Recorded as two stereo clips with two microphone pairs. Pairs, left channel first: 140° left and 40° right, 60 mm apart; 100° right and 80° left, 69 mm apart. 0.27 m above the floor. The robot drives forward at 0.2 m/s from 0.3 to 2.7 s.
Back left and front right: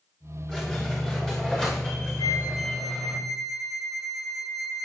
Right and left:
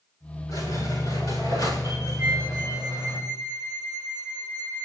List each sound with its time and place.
0.5 s a squeak: 145° right, 10 m
2.2 s a flute: 145° left, 3.5 m